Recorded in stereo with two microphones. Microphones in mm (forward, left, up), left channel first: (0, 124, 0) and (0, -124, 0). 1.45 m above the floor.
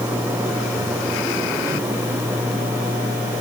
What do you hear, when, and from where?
Only background noise.